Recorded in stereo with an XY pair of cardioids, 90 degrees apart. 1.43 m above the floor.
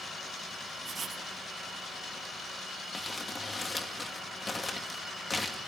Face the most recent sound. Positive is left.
turn(degrees=20)